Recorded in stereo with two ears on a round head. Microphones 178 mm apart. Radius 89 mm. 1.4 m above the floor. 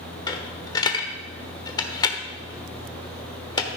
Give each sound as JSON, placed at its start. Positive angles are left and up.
{"t": 0.3, "sound": "a dropped coin", "side_deg": 20, "distance_m": 1.1}